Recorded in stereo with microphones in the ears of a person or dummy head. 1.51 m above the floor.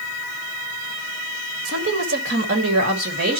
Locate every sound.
1.6 s a woman speaking: 70° right (ahead or behind), 2.0 m; by 3.4 s 60° right (ahead or behind), 3 m